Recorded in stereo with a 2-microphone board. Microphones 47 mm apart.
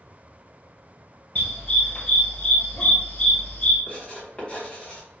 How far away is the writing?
About 1.9 m.